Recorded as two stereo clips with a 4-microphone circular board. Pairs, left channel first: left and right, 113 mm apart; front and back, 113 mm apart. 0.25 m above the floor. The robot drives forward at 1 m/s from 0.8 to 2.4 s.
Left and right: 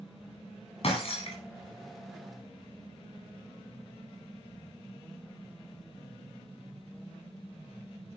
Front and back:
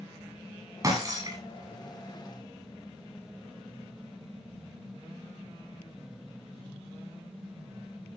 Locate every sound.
0.8 s breaking glass: 120° left, 8.5 m